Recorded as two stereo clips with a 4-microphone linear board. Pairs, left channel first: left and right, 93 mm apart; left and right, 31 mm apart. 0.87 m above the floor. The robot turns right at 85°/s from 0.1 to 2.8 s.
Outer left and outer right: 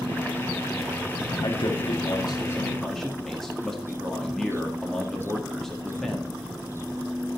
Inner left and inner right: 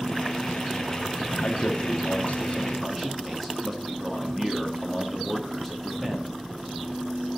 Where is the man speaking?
60° left, 1.7 m; by 6.4 s 175° left, 1.7 m.